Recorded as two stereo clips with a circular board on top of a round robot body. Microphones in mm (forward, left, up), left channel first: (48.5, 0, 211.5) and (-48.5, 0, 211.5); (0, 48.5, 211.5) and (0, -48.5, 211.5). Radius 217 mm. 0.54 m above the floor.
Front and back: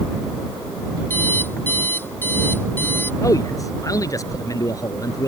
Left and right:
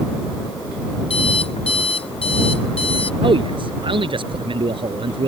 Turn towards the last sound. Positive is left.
turn(degrees=-55)